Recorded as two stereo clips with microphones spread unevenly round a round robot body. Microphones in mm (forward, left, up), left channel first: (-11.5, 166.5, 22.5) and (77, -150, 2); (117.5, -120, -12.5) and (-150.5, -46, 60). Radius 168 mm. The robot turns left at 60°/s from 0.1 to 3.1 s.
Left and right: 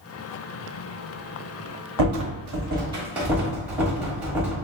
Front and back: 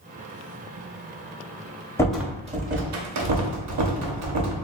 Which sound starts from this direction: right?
A rattle, at 2.0 s.